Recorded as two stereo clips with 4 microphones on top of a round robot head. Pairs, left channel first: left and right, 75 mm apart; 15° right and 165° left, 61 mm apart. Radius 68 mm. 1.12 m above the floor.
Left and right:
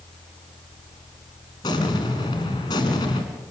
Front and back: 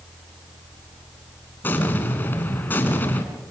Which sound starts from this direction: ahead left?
An explosion, at 1.6 s.